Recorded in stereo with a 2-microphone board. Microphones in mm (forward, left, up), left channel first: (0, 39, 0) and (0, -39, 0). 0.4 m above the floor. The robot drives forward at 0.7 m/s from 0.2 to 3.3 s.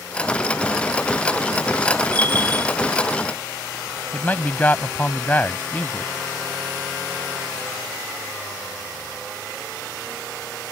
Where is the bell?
20° left (ahead or behind); by 2.8 s 25° left (ahead or behind).